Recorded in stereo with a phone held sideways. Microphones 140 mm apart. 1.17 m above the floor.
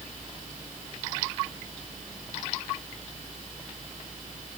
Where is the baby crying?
I don't hear a baby crying.